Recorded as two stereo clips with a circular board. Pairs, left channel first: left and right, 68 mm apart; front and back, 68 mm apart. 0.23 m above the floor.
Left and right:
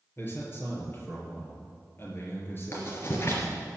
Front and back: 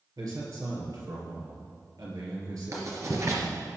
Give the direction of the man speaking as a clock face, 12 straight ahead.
7 o'clock.